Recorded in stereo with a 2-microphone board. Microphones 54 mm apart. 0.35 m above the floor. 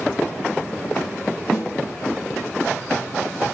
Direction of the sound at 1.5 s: 20° left (ahead or behind).